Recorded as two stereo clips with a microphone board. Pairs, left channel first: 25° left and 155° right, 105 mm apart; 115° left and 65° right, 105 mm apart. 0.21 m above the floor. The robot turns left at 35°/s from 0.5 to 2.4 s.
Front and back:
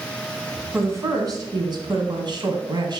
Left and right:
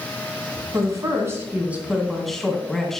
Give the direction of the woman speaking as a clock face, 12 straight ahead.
3 o'clock.